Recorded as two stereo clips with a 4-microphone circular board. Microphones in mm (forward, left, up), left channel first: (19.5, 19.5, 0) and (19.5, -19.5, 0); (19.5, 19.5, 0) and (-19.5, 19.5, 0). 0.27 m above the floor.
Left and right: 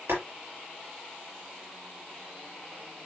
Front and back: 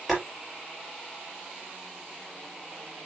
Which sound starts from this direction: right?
Boiling, at 0.1 s.